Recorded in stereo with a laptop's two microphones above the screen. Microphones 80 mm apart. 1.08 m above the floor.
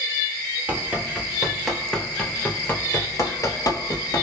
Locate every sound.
0.7 s running footsteps: 20° right (ahead or behind), 1.4 m; by 4.2 s 55° left (ahead or behind), 1.7 m